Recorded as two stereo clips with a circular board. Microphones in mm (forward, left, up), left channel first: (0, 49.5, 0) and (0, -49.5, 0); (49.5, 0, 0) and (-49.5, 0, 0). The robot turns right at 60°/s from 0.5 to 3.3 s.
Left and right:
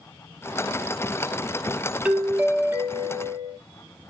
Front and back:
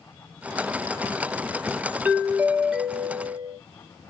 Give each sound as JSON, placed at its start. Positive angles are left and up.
{"t": 2.0, "sound": "a doorbell", "azimuth_deg": -145, "distance_m": 0.8}